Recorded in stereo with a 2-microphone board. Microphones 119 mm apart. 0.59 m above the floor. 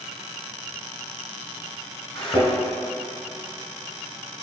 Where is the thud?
45° left (ahead or behind), 2 m.